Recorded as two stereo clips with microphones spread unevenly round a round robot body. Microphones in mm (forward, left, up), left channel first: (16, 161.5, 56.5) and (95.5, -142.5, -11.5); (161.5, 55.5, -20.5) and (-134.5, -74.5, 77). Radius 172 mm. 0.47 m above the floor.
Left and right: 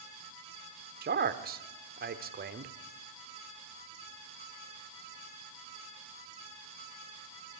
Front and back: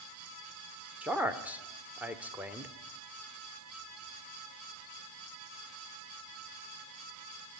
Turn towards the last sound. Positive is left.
turn(degrees=-55)